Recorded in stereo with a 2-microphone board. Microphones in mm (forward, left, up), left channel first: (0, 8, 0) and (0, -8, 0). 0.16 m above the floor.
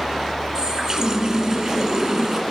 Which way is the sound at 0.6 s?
45° right (ahead or behind).